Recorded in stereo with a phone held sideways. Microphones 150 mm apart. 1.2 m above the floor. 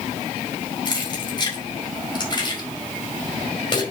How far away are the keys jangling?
About 4 m.